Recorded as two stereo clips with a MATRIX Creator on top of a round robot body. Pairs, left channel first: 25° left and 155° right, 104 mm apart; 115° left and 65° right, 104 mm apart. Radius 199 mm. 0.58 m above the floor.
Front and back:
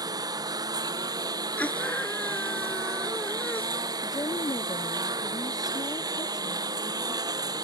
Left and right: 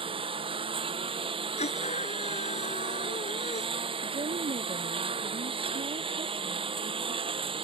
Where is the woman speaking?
35° right.